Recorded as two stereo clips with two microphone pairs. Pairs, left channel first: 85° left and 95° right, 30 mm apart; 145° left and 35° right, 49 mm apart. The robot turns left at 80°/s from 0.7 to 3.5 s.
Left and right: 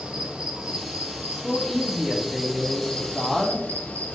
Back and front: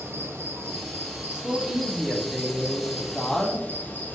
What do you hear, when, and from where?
0.0 s an insect: 40° right, 0.9 m; by 4.2 s 95° left, 0.9 m
1.3 s a man speaking: 20° left, 1.1 m; by 4.2 s 155° right, 1.1 m